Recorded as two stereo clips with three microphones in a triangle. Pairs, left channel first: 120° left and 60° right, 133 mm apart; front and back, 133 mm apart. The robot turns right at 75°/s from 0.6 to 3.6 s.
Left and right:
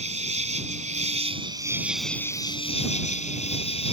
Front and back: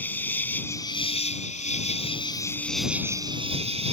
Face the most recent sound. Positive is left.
turn(degrees=150)